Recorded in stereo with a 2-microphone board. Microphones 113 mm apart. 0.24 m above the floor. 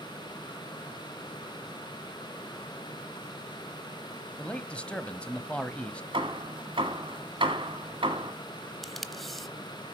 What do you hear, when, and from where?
4.4 s a man speaking: 10° left (ahead or behind), 1.0 m
6.1 s hammering: 50° right (ahead or behind), 1.6 m
8.8 s tape being pulled: centre (ahead or behind), 0.8 m